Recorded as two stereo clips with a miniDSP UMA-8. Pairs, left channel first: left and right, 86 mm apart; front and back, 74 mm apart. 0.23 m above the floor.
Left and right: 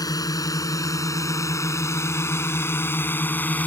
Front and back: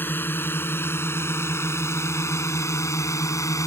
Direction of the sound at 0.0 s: 55° left.